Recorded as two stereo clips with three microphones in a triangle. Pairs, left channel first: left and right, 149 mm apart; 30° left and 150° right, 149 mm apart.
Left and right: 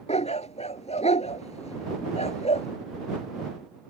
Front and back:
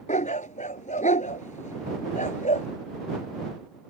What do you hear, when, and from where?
0.1 s a dog barking: 55° left